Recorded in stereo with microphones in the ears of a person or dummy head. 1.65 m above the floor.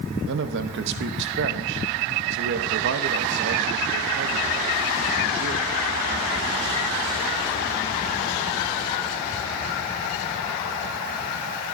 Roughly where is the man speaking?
Right.